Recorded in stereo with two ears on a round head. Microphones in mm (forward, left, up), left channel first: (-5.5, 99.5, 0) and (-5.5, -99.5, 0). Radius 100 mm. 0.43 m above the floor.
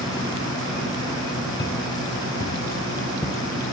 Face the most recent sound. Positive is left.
turn(degrees=10)  # may be behind; listen again after turning